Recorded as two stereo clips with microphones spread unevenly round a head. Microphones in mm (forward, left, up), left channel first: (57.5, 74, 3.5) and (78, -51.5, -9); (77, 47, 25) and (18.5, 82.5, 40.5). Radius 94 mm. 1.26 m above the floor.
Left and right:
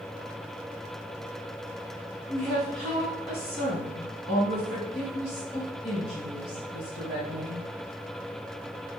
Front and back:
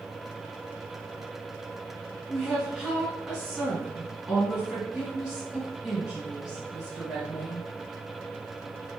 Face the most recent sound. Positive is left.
turn(degrees=70)